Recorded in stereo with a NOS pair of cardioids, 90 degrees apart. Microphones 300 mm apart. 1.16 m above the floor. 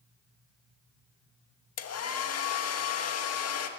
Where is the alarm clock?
No alarm clock in this recording.